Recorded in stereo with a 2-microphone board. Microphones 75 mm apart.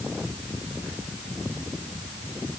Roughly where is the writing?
I don't hear writing.